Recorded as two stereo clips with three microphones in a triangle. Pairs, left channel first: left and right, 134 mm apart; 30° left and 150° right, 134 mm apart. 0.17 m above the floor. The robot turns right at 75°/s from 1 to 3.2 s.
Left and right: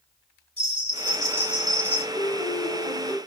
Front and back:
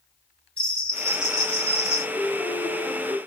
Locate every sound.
0.6 s a bell: 55° right, 3 m; by 2.0 s 25° left, 3 m
2.1 s a piano: 60° left, 1.3 m; by 3.2 s 135° left, 1.3 m